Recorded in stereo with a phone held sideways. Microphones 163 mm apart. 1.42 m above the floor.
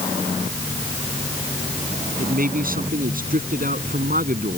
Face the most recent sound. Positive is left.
turn(degrees=-55)  # may be behind; listen again after turning